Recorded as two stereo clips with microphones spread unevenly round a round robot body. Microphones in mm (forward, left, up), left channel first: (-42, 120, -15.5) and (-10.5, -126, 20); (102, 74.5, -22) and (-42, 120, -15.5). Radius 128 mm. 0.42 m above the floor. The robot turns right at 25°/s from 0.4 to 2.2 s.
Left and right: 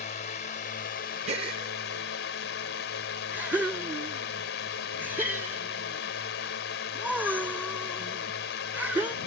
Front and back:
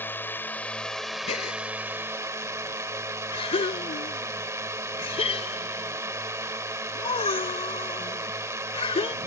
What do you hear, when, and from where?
0.0 s a drone: 55° left; by 9.3 s 100° left
1.3 s a gasp: 15° right; by 9.2 s 5° left